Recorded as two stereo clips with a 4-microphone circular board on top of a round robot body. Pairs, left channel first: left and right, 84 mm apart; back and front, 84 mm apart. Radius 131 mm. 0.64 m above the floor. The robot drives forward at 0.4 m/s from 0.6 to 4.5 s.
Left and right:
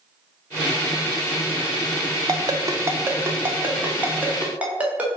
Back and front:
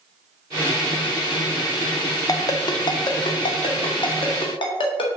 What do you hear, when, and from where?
2.3 s a ringtone: 135° right, 0.5 m; by 5.2 s 165° right, 1.3 m